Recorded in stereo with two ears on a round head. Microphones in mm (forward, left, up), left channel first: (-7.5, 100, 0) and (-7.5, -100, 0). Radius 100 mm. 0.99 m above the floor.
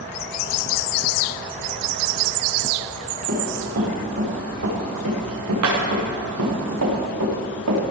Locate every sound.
3.3 s running footsteps: 50° right (ahead or behind), 6 m; by 7.8 s 75° right (ahead or behind), 5.5 m